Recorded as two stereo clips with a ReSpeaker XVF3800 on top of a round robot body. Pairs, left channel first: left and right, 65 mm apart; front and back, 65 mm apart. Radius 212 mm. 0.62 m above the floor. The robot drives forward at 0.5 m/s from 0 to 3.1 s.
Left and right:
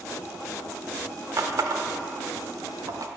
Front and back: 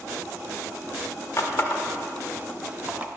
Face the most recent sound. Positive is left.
turn(degrees=-115)